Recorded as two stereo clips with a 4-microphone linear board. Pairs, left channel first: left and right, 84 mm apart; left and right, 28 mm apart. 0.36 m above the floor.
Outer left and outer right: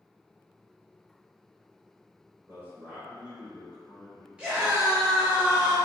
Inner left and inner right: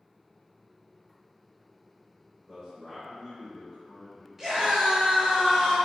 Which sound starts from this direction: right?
A man speaking, at 2.5 s.